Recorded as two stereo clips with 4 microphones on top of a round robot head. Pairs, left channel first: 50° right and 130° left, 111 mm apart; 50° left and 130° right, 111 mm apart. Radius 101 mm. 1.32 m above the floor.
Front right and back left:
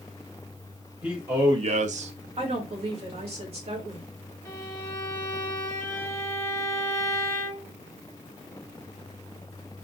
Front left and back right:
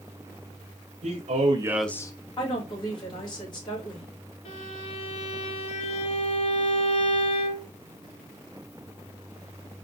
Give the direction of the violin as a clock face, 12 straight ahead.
11 o'clock.